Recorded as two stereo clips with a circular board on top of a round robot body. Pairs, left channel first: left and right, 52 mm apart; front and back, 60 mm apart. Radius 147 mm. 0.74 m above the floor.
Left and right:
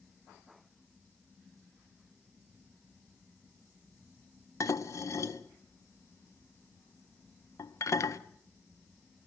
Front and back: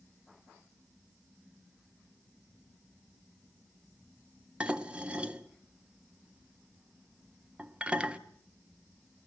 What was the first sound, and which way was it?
Dishes clattering, 105° left.